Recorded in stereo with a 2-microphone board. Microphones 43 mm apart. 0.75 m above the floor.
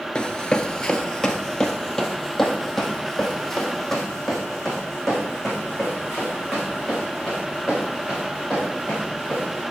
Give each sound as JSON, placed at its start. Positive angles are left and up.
{"t": 0.1, "sound": "running footsteps", "side_deg": 20, "distance_m": 0.7}